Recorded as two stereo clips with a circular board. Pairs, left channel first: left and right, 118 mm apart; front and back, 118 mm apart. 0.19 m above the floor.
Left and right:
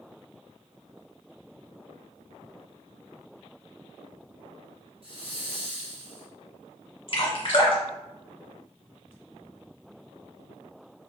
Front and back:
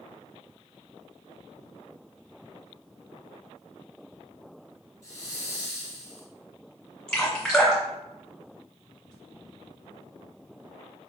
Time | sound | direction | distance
5.0 | a hiss | 60° right | 1.3 m
7.1 | dripping | 85° left | 1.6 m